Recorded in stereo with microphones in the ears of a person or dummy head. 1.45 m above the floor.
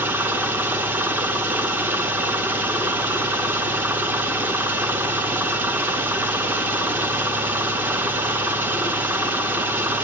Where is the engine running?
10° right (ahead or behind), 0.9 m.